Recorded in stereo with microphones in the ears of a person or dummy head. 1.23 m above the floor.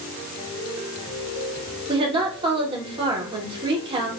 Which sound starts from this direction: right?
A woman speaking, at 1.9 s.